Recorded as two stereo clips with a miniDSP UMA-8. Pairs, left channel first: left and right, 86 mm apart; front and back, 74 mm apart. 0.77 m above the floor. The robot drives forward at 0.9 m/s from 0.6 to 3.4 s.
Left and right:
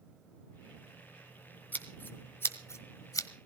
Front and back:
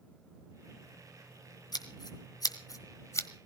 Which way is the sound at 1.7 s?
20° left.